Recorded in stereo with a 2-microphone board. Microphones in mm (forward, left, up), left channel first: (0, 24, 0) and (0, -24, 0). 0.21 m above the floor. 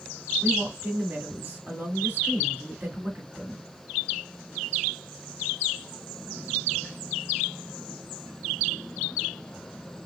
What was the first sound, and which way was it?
A woman speaking, 35° right (ahead or behind).